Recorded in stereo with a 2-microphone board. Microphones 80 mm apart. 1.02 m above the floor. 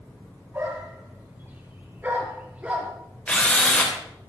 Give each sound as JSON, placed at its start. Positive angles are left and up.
{"t": 0.5, "sound": "a dog barking", "side_deg": -30, "distance_m": 6.0}
{"t": 3.3, "sound": "a drill", "side_deg": 15, "distance_m": 3.5}